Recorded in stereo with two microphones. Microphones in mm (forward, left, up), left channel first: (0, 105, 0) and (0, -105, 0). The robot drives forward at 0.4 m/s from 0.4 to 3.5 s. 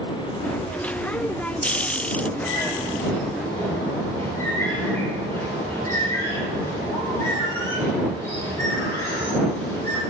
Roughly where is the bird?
Centre.